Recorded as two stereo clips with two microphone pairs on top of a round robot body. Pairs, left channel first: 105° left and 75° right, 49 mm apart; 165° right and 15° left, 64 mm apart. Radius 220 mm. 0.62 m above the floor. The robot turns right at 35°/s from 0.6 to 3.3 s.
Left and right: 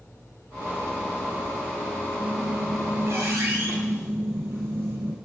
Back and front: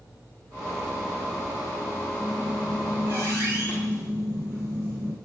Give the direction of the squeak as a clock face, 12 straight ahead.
2 o'clock.